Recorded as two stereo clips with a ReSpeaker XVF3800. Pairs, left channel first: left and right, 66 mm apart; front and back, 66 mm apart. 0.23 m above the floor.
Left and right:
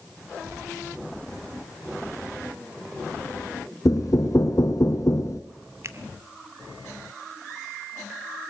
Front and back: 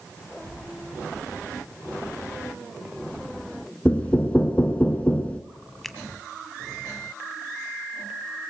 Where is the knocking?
65° left, 1.7 m.